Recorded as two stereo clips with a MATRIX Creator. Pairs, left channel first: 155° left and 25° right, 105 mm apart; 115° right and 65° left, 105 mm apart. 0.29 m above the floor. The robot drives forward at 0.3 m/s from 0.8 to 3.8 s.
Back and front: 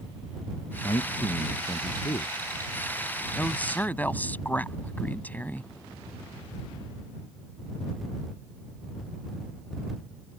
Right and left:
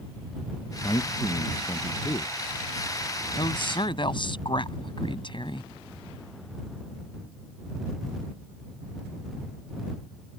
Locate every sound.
0.8 s a man speaking: 160° right
3.4 s a woman speaking: 130° right